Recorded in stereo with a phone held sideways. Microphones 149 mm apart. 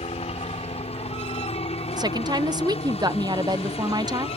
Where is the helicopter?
45° left (ahead or behind).